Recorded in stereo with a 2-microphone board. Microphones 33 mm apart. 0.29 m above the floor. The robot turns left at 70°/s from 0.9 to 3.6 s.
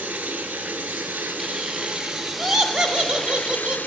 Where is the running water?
75° right, 1.1 m; by 3.9 s 95° left, 1.1 m.